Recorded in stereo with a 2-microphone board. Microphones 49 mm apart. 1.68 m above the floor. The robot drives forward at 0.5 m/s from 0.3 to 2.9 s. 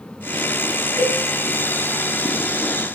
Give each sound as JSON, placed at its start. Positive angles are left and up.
{"t": 1.0, "sound": "a cowbell", "side_deg": -85, "distance_m": 7.5}